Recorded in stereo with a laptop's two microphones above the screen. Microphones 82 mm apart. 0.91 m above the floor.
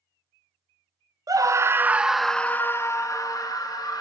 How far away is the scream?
About 0.7 m.